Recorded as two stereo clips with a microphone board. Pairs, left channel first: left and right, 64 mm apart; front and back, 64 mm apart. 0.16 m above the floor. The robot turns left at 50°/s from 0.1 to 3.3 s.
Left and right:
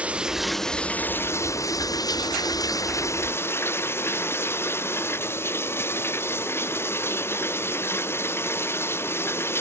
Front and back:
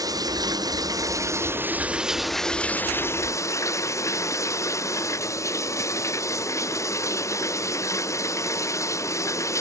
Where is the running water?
160° right; by 9.6 s 40° left.